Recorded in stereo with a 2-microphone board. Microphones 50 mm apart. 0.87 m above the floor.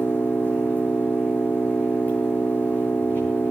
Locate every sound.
0.0 s an engine running: 40° left (ahead or behind), 8.5 m